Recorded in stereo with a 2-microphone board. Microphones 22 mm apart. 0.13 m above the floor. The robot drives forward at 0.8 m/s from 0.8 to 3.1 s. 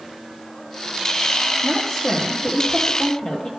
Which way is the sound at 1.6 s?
35° left (ahead or behind).